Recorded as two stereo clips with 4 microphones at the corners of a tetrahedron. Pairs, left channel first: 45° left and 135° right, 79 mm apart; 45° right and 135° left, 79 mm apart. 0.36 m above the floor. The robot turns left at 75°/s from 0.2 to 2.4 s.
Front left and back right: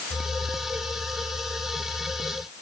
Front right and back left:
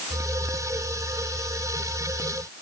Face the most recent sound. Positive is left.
No sound to turn to.